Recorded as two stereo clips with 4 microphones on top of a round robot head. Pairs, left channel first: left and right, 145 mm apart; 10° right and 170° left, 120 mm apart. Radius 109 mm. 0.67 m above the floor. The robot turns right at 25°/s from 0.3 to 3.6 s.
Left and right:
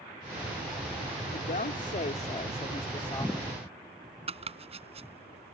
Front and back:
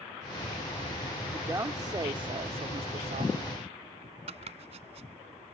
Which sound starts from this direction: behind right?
Chopping, at 4.3 s.